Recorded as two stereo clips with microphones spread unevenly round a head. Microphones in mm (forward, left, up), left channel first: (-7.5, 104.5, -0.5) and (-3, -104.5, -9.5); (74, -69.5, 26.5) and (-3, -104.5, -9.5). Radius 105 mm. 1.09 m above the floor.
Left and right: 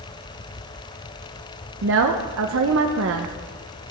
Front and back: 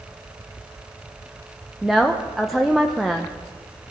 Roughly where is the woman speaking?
Right.